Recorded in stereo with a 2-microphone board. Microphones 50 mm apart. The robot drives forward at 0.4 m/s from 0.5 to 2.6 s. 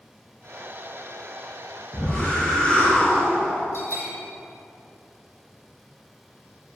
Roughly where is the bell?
Left.